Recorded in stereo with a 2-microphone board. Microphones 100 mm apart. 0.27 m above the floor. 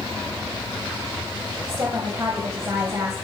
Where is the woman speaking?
30° right (ahead or behind), 1.2 m.